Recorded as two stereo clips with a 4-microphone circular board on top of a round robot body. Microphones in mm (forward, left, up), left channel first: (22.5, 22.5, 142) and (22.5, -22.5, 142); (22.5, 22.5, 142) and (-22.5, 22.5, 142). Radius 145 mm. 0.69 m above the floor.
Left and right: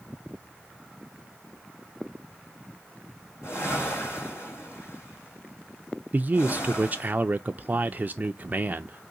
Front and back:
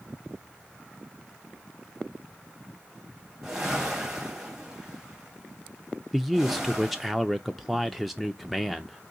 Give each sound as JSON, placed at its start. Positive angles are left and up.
{"t": 3.4, "sound": "a whoosh", "azimuth_deg": 105, "distance_m": 2.0}
{"t": 6.1, "sound": "a man speaking", "azimuth_deg": -95, "distance_m": 0.5}